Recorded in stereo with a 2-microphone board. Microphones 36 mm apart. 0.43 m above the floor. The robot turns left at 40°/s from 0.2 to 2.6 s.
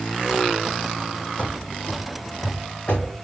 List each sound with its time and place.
1.4 s running footsteps: 40° left (ahead or behind), 0.8 m; by 3.1 s 30° left (ahead or behind), 1.4 m